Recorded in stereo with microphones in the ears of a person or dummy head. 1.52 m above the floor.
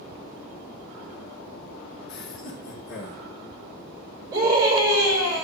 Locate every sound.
2.1 s laughter: 70° left (ahead or behind), 4 m; by 3.2 s 80° left, 4.5 m
4.3 s a scream: 20° right (ahead or behind), 8 m